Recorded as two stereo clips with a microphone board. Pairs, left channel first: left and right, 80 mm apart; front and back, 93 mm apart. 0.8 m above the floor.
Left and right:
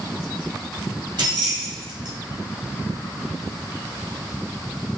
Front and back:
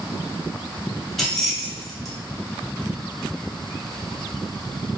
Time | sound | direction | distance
1.2 | keys jangling | 85° right | 0.9 m